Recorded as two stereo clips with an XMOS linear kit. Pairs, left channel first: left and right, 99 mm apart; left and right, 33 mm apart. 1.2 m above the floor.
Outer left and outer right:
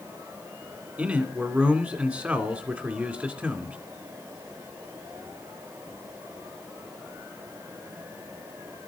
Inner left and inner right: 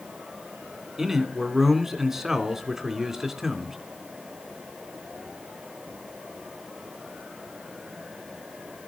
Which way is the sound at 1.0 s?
15° right (ahead or behind).